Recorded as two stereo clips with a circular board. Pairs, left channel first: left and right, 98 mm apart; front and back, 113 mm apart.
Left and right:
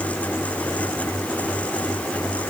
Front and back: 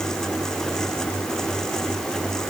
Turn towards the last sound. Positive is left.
No sound to turn to.